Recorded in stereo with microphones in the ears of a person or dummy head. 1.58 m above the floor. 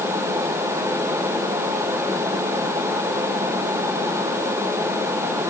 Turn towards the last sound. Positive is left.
No sound to turn to.